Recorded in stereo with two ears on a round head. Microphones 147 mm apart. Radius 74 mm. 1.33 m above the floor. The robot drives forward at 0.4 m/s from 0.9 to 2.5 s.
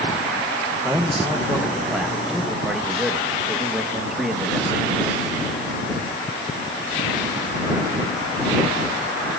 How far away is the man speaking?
About 0.9 m.